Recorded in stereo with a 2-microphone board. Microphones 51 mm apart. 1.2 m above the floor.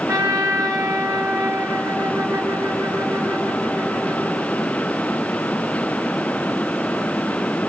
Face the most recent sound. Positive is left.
turn(degrees=-85)